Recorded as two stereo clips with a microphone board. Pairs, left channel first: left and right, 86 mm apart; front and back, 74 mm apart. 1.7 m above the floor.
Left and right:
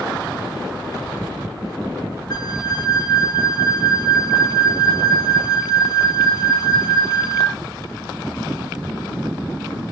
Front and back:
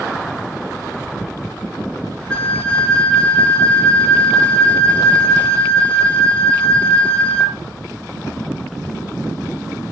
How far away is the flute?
About 0.6 m.